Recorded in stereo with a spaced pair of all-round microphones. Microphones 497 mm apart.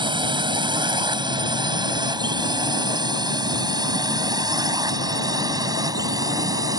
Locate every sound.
0.0 s a drone: 10° right (ahead or behind); by 6.8 s 5° right (ahead or behind)